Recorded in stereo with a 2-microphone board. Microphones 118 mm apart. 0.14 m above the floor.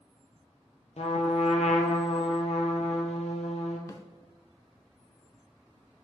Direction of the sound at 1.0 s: 70° left (ahead or behind).